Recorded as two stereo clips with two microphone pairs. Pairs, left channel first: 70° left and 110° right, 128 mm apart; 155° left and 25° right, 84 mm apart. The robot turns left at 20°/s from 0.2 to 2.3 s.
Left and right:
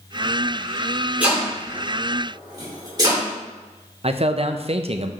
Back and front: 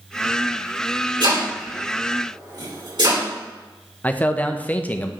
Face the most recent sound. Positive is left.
turn(degrees=-140)